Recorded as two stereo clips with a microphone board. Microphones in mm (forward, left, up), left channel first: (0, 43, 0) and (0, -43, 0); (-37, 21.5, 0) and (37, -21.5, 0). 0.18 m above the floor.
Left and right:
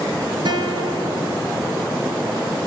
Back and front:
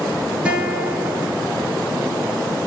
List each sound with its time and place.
0.5 s a guitar: 105° right, 1.4 m